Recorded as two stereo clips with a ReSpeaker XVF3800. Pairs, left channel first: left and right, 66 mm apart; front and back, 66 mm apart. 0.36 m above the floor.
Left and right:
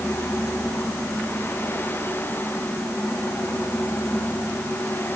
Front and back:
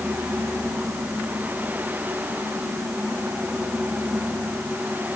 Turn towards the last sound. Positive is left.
No sound to turn to.